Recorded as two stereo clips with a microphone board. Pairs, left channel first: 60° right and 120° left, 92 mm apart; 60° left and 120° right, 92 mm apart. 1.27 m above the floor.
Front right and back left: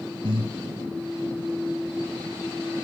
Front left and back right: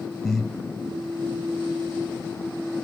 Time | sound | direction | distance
0.2 | breathing | 150° left | 0.9 m